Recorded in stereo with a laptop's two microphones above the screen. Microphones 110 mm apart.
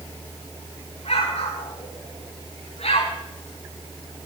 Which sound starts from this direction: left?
An explosion, at 1.1 s.